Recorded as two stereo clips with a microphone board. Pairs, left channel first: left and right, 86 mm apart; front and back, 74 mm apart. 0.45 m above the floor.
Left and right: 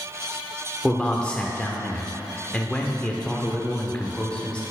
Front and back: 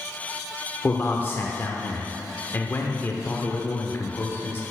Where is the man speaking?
20° left, 0.8 m.